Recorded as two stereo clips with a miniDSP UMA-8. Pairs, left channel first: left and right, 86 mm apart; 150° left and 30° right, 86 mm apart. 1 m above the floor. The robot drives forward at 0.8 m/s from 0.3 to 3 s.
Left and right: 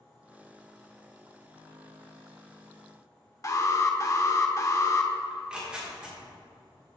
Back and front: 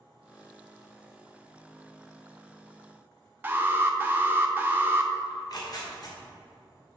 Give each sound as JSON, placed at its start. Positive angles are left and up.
{"t": 3.4, "sound": "an alarm", "azimuth_deg": 40, "distance_m": 0.7}
{"t": 5.3, "sound": "tearing paper", "azimuth_deg": -170, "distance_m": 1.7}